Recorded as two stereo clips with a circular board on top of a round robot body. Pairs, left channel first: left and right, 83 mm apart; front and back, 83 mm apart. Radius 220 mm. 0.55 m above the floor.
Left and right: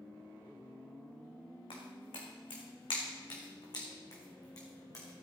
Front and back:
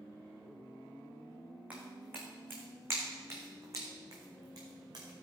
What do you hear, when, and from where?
1.7 s footsteps: 105° left, 3.5 m; by 5.2 s 140° left, 4 m